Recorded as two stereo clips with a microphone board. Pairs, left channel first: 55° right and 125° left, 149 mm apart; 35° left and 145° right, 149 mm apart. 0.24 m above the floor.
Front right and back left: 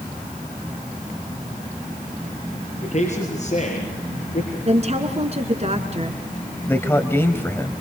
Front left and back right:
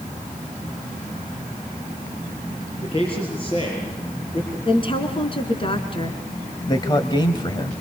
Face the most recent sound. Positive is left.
turn(degrees=10)